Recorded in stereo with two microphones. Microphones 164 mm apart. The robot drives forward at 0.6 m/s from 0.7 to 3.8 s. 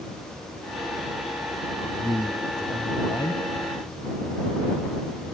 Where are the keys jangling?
I don't hear keys jangling.